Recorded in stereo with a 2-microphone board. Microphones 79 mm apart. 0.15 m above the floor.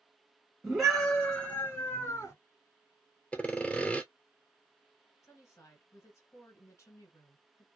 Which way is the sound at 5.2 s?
45° left (ahead or behind).